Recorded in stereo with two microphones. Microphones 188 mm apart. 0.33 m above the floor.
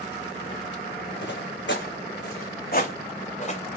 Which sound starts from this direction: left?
Footsteps, at 1.2 s.